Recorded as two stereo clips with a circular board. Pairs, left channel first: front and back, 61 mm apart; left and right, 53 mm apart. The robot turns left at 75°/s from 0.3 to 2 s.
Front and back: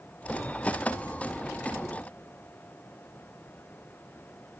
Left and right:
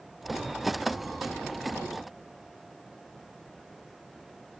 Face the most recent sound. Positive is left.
No sound to turn to.